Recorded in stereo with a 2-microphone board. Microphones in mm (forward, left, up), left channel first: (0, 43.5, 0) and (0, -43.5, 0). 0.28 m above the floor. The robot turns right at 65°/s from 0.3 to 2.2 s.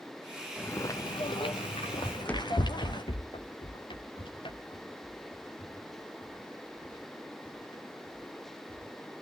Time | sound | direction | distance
0.6 | footsteps | 20° left (ahead or behind) | 2.5 m
2.0 | running footsteps | 20° right (ahead or behind) | 0.8 m